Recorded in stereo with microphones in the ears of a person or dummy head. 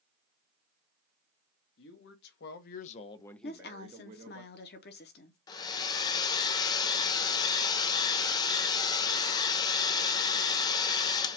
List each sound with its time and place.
1.8 s a man speaking: 75° left (ahead or behind), 1.3 m; by 4.4 s 50° right (ahead or behind), 0.9 m
3.4 s a woman speaking: 45° left (ahead or behind), 0.9 m
5.5 s a hair dryer: 25° left (ahead or behind), 0.6 m